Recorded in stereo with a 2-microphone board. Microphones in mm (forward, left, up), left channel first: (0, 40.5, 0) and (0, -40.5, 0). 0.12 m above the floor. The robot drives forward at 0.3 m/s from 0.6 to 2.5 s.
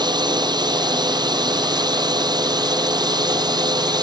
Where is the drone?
65° right (ahead or behind); by 4.0 s 60° right (ahead or behind).